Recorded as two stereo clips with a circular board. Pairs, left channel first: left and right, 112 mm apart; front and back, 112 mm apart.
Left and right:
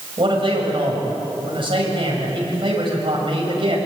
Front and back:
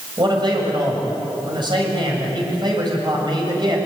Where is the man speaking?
130° right, 7 m.